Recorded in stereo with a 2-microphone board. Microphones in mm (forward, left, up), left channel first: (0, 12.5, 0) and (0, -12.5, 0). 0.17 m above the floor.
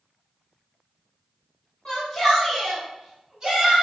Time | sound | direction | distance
1.9 | a shout | 25° left (ahead or behind) | 1.2 m